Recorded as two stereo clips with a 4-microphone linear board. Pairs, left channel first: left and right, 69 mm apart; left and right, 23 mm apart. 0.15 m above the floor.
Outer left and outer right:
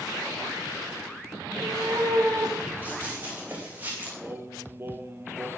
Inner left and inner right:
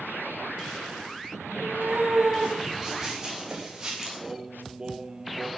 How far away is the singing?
About 1.8 m.